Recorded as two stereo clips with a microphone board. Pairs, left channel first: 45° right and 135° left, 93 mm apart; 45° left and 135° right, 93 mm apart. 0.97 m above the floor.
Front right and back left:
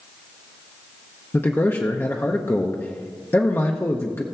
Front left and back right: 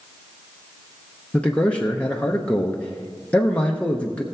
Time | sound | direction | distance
1.3 | a man speaking | 15° right | 0.9 m